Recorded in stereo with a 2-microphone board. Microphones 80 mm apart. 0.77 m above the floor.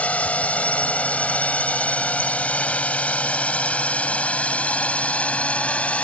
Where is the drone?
20° left (ahead or behind); by 6.0 s 15° left (ahead or behind).